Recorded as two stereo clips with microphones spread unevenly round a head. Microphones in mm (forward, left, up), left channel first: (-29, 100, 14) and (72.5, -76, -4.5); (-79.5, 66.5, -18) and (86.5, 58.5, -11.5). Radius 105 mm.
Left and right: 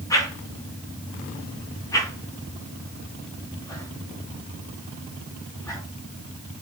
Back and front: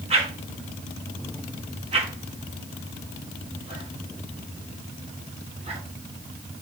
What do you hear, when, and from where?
0.1 s a whoosh: 50° left, 4.5 m